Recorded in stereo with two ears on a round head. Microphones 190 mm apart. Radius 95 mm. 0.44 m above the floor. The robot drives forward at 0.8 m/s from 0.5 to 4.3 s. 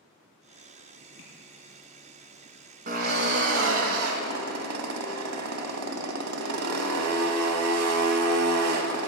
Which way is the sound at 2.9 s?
45° right (ahead or behind).